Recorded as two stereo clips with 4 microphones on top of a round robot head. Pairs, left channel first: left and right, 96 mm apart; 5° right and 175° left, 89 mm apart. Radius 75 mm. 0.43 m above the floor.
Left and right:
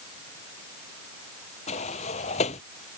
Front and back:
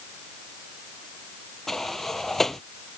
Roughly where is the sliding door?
Left.